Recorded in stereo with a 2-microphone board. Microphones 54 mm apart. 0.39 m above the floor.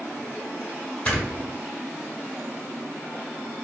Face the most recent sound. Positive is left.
turn(degrees=30)  # may be behind; listen again after turning